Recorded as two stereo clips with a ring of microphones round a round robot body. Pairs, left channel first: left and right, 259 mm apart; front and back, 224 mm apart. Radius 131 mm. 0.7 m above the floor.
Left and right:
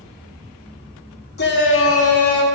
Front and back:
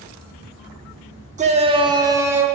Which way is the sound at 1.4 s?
130° left.